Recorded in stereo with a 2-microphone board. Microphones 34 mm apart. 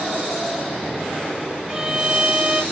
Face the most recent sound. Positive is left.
turn(degrees=-20)  # may be behind; listen again after turning